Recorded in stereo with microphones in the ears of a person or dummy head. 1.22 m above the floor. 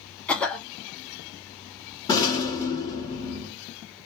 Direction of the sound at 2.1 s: 25° left (ahead or behind).